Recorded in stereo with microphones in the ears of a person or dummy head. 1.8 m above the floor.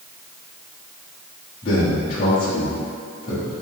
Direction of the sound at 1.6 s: 30° left (ahead or behind).